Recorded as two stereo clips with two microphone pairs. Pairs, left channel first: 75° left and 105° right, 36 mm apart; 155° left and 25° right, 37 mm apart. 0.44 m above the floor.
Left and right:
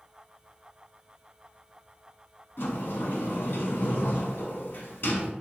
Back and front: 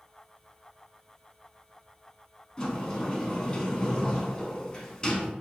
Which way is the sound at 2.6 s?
90° left.